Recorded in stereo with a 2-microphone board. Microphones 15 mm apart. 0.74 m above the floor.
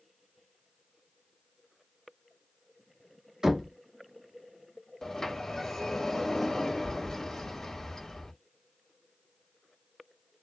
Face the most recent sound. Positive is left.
turn(degrees=40)  # may be behind; listen again after turning